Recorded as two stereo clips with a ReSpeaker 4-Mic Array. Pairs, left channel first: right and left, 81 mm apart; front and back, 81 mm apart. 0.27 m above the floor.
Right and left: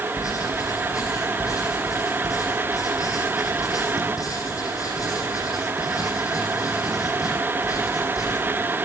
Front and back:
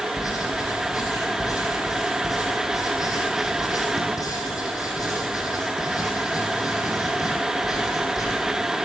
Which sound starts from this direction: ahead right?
Writing, at 0.2 s.